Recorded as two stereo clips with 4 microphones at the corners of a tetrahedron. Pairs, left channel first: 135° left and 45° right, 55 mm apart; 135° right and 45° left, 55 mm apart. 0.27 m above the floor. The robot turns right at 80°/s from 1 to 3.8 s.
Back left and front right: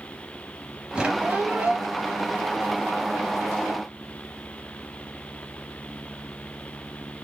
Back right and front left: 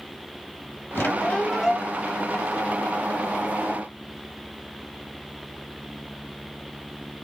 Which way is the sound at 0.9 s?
105° right.